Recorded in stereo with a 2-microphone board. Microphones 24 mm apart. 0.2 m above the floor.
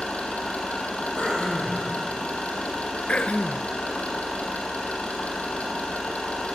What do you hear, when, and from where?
0.0 s an engine running: 70° left (ahead or behind), 4.5 m
1.2 s throat clearing: 60° left (ahead or behind), 5.5 m
3.1 s throat clearing: 70° left (ahead or behind), 0.9 m